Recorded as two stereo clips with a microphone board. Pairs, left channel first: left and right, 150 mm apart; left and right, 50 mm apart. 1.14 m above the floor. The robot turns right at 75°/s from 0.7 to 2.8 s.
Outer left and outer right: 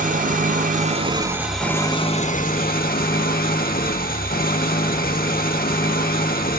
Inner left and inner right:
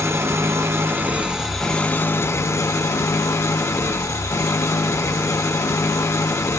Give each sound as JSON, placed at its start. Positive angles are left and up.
{"t": 0.0, "sound": "an engine running", "azimuth_deg": -65, "distance_m": 1.5}